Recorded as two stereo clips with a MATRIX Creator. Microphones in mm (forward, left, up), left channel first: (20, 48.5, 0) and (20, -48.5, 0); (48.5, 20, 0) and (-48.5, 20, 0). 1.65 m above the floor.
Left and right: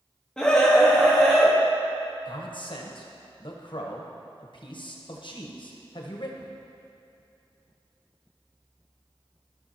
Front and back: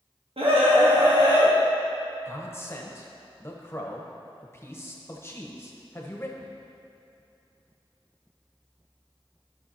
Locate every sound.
0.4 s a scream: 170° left, 1.1 m; by 1.5 s straight behind, 1.9 m
2.2 s a man speaking: 60° left, 1.2 m